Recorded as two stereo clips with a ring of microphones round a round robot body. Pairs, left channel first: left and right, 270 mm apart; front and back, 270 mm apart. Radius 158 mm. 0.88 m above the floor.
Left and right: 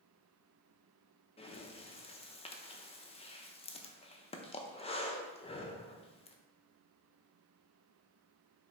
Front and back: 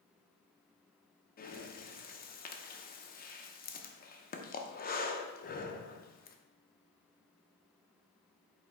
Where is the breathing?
35° left, 0.6 m.